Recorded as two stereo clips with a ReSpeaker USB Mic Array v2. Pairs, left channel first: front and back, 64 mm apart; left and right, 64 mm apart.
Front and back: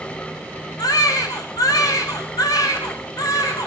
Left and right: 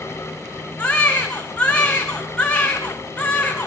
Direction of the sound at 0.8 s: 15° left.